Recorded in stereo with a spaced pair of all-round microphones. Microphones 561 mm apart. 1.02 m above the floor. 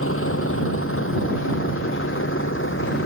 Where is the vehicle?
20° left (ahead or behind).